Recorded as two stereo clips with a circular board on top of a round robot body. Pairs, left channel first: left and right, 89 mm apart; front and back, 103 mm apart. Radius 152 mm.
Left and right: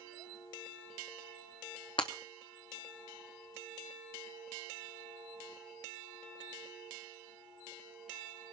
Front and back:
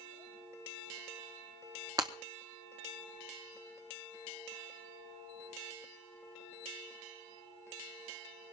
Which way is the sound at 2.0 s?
125° left.